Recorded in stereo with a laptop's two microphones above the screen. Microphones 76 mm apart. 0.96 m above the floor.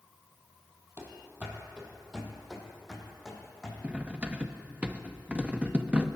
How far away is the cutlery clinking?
About 0.6 m.